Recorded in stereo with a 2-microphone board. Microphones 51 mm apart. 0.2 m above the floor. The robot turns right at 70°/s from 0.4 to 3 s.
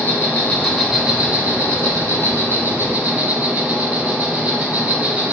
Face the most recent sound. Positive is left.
turn(degrees=-30)